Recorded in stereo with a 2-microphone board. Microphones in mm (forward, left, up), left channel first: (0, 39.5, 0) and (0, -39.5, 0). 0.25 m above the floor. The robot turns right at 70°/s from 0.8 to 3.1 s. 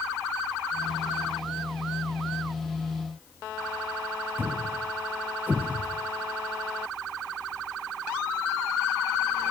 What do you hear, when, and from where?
4.4 s a thud: 25° right (ahead or behind), 0.9 m